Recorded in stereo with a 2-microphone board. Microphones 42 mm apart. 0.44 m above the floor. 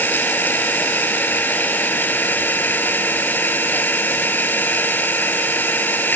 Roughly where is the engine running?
Left.